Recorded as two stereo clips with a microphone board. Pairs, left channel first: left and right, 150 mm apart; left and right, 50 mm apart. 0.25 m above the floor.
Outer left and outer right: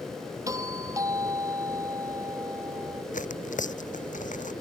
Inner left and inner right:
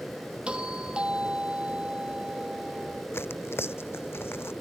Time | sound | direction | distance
0.5 | a doorbell | 20° right (ahead or behind) | ?
3.1 | tearing paper | 60° left (ahead or behind) | ?